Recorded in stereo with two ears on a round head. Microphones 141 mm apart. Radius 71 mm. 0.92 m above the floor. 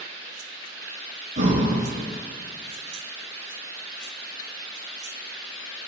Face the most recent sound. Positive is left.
turn(degrees=-50)  # may be behind; listen again after turning